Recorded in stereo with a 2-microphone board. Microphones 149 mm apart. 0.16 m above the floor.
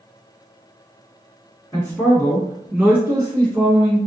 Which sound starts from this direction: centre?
A man speaking, at 1.7 s.